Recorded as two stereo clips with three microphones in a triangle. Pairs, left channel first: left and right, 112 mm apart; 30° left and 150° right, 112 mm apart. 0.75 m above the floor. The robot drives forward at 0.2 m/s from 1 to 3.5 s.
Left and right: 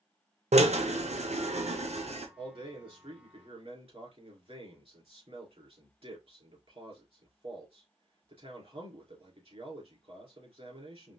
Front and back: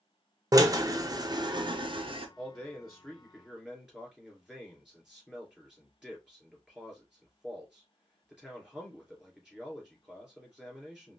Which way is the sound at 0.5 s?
90° right.